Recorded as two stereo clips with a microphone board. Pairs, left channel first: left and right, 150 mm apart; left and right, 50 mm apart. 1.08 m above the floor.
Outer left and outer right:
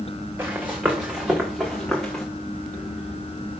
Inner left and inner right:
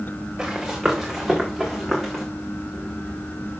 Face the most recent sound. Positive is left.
turn(degrees=5)  # may be behind; listen again after turning